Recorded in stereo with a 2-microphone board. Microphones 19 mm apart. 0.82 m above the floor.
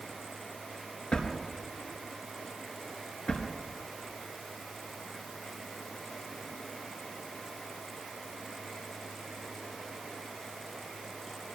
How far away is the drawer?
About 4 m.